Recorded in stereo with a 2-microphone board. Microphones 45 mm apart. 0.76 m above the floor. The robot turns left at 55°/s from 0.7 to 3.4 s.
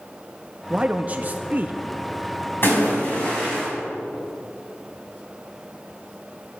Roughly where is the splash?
Ahead left.